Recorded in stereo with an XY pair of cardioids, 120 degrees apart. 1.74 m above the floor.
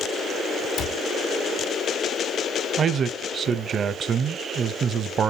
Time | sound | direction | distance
0.8 | a cupboard door | 65° left | 1.9 m
2.8 | a man speaking | 45° right | 0.7 m